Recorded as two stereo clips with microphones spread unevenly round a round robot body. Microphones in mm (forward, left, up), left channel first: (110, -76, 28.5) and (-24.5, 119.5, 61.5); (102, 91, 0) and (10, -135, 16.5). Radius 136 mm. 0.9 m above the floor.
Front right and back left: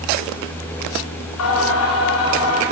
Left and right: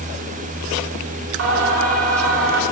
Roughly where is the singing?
Right.